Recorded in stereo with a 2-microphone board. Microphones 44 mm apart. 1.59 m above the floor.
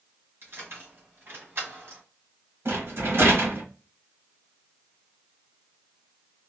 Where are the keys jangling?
55° right (ahead or behind), 1.4 m.